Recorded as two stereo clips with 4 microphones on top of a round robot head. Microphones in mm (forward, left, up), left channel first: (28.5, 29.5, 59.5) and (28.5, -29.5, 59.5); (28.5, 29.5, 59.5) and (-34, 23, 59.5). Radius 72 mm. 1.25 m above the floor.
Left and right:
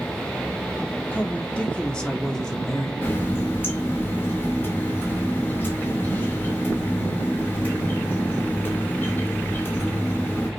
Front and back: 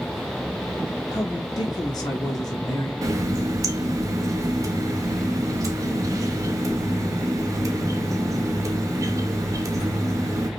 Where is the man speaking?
25° left, 1.7 m; by 2.9 s 10° left, 2.5 m.